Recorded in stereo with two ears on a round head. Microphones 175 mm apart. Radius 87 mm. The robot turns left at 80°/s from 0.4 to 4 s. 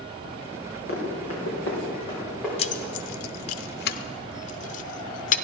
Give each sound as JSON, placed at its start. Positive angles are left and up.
{"t": 0.9, "sound": "running footsteps", "side_deg": 55, "distance_m": 4.5}
{"t": 2.6, "sound": "keys jangling", "side_deg": 30, "distance_m": 0.5}